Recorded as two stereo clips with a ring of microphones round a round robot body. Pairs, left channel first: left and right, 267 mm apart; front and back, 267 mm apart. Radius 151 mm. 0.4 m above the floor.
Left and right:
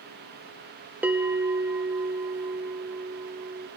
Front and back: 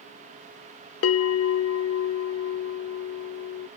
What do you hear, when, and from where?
1.0 s a bell: 10° right, 0.6 m